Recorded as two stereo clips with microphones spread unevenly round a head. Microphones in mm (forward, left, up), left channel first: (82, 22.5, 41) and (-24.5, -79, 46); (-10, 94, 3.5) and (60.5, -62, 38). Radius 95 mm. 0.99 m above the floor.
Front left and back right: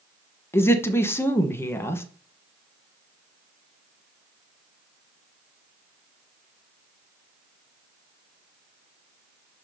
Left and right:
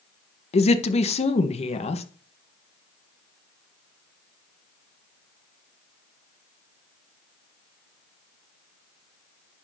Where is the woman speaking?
110° left, 1.0 m.